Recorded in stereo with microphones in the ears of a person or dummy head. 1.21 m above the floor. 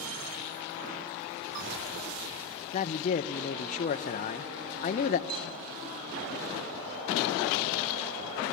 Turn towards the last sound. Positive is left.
turn(degrees=-50)  # may be behind; listen again after turning